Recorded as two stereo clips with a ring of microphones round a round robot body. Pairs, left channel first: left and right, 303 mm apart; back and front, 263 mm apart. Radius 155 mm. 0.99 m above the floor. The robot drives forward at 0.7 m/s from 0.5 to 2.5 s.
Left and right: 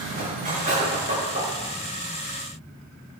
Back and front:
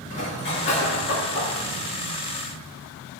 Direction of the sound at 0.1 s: 155° right.